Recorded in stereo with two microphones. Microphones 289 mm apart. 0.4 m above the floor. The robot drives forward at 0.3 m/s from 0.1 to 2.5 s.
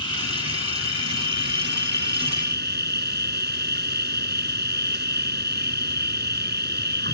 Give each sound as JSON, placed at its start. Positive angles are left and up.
{"t": 0.0, "sound": "an insect", "side_deg": -55}